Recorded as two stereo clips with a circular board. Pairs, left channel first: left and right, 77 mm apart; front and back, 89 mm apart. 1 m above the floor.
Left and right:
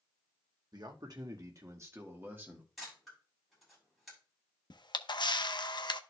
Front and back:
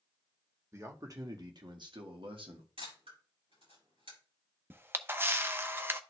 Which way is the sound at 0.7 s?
120° right.